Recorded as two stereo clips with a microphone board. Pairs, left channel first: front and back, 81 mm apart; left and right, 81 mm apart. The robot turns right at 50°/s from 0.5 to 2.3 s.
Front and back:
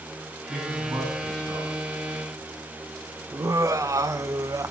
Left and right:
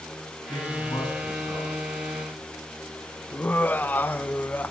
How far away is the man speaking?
About 9.5 m.